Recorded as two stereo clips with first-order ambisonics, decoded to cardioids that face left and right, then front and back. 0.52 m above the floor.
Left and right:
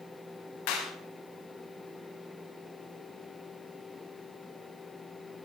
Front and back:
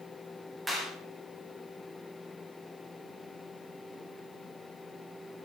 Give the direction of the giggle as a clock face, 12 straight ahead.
No giggle in this recording.